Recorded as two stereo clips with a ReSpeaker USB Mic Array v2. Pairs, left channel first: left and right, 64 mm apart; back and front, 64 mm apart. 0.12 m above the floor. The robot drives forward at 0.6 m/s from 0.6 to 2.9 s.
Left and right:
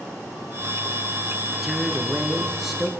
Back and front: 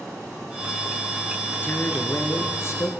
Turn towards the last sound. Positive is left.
turn(degrees=-175)